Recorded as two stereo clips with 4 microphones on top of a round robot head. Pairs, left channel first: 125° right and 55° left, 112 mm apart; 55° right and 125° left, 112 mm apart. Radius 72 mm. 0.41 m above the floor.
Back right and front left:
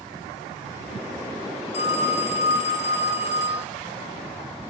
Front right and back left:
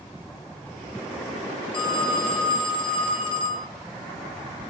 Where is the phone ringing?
95° right, 1.5 m.